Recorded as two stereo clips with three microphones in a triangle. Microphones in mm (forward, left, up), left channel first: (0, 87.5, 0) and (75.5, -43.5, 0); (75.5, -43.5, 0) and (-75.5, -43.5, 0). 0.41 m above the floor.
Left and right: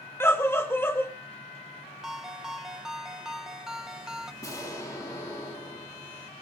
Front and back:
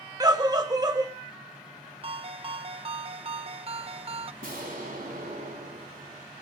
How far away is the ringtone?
About 0.6 m.